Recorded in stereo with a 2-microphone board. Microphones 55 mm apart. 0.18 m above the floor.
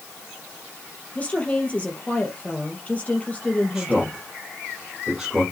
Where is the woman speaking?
25° left (ahead or behind), 3.5 m.